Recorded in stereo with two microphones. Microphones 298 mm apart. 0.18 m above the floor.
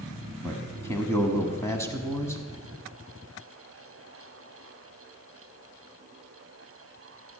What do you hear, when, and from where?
0.4 s a man speaking: 10° left (ahead or behind), 1.1 m